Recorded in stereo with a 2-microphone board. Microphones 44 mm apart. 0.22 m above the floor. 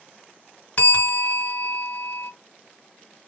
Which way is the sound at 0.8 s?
35° left (ahead or behind).